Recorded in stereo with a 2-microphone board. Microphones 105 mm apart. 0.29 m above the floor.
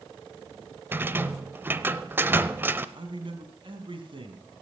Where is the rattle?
20° right (ahead or behind), 0.7 m.